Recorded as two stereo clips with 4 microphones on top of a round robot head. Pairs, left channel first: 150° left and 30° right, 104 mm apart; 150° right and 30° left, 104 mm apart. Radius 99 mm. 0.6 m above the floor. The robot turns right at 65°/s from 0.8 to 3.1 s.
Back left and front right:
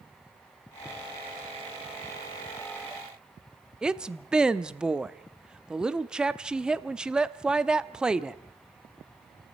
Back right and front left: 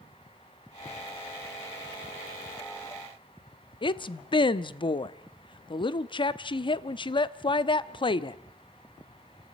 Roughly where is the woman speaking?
Behind right.